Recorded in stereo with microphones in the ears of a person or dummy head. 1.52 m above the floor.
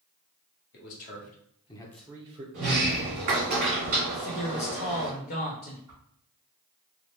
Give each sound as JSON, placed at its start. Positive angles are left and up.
{"t": 0.7, "sound": "a man speaking", "side_deg": 55, "distance_m": 1.2}
{"t": 2.5, "sound": "a sliding door", "side_deg": -40, "distance_m": 1.4}
{"t": 4.1, "sound": "a man speaking", "side_deg": 55, "distance_m": 0.8}
{"t": 5.9, "sound": "a whoosh", "side_deg": -15, "distance_m": 1.1}